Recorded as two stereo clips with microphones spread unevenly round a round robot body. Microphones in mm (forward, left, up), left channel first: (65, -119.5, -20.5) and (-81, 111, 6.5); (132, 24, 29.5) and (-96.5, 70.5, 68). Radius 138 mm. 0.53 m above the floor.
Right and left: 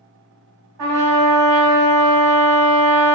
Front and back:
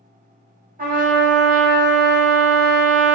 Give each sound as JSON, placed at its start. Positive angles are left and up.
{"t": 0.8, "sound": "a trumpet", "azimuth_deg": 110, "distance_m": 0.8}